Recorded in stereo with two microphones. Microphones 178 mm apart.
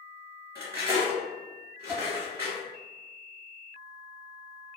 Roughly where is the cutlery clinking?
Centre.